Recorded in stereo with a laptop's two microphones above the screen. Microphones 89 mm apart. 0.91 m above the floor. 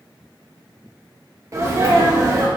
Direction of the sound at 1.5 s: 35° right (ahead or behind).